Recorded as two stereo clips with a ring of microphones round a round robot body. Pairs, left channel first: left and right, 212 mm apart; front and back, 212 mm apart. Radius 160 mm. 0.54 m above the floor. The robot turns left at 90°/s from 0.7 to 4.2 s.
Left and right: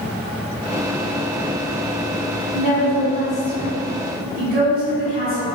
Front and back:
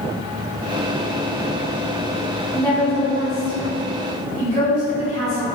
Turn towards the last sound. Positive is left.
turn(degrees=-60)